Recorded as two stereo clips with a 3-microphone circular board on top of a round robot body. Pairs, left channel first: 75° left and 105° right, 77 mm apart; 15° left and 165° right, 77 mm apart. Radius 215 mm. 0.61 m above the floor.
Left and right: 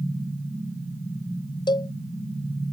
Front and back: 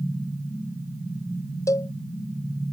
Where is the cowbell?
60° left.